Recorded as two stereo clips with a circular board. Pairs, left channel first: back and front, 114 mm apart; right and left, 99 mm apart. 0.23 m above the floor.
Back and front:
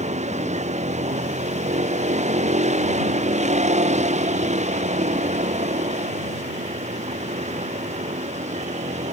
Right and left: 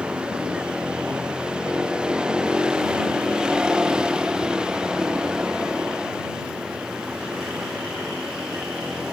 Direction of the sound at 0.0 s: 10° left.